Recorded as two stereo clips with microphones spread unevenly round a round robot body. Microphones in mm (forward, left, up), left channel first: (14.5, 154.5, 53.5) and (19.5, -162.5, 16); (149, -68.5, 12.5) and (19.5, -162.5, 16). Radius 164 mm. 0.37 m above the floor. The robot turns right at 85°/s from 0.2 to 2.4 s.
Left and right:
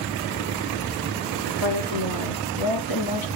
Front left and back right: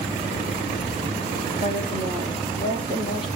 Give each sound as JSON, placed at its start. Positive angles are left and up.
{"t": 1.6, "sound": "a woman speaking", "azimuth_deg": 40, "distance_m": 6.0}